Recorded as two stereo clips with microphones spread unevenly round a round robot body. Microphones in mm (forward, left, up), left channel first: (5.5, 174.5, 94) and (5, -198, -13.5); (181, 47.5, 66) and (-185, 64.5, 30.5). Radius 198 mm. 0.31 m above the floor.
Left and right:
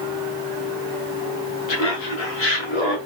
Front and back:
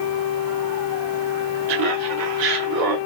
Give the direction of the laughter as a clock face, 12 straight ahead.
8 o'clock.